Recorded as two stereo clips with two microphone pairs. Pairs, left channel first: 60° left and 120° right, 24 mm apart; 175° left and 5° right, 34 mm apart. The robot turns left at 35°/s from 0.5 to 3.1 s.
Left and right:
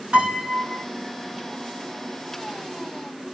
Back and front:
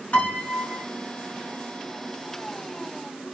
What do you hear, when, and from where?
0.1 s a piano: 140° right, 4 m; by 0.8 s 150° right, 4 m